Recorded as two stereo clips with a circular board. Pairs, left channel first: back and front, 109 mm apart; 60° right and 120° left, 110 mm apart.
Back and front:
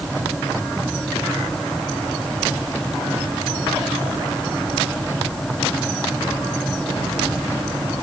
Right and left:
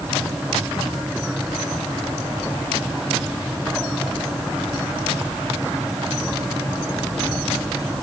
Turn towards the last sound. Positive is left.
No sound to turn to.